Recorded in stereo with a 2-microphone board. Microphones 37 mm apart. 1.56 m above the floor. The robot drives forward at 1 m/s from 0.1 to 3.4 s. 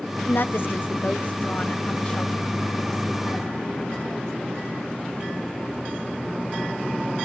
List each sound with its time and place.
0.2 s a woman speaking: 65° left (ahead or behind), 1.2 m; by 4.3 s 20° left (ahead or behind), 3.5 m